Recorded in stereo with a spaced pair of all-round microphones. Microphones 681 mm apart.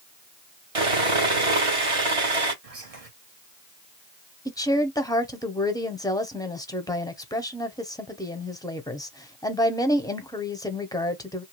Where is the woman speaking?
5° left (ahead or behind), 0.6 m.